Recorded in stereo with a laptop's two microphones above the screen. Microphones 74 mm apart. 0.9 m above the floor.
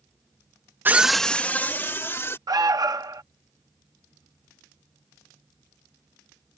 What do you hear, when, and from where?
0.8 s a scream: 25° right (ahead or behind); by 2.4 s 35° left (ahead or behind)
2.5 s an alarm: 60° right (ahead or behind)